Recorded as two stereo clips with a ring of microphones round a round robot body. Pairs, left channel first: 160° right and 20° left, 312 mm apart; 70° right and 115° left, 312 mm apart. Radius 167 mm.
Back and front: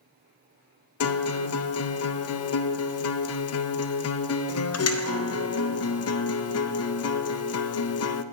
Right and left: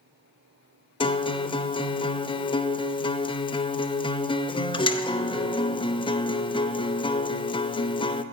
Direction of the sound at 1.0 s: 140° right.